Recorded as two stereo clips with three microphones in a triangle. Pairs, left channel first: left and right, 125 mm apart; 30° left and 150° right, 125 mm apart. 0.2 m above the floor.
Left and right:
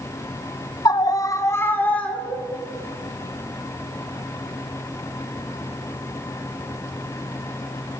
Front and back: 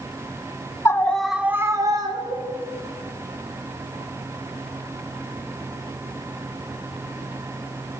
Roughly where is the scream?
Left.